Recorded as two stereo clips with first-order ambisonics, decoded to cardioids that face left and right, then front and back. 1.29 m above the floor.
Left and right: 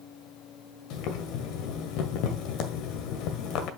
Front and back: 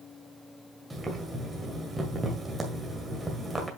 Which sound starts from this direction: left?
Boiling, at 0.9 s.